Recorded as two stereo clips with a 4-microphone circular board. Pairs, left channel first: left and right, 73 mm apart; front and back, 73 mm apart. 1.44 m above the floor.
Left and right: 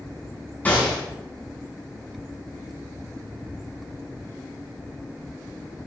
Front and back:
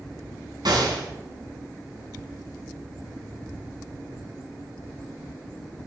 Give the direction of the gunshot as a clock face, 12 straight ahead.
7 o'clock.